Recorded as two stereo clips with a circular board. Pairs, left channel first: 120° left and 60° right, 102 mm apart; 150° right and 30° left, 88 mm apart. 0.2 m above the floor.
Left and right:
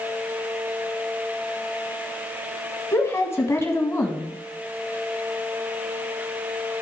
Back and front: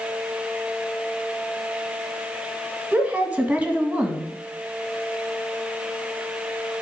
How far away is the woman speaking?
About 1.4 m.